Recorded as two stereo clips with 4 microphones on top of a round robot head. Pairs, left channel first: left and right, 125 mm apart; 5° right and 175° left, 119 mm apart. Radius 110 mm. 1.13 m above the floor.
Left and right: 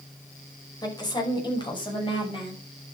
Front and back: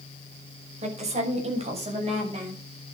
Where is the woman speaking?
150° left, 6 m; by 2.6 s 140° left, 8.5 m.